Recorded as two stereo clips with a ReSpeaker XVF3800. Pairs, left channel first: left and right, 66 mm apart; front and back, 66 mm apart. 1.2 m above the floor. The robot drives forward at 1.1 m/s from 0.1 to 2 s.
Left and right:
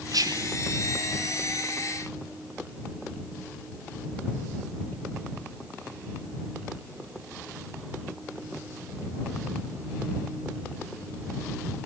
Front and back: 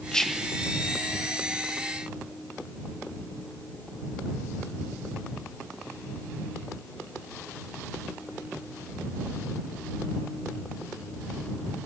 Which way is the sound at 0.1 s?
75° right.